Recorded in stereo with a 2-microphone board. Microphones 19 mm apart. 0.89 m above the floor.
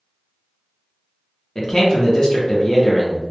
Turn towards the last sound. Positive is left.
turn(degrees=35)  # may be behind; listen again after turning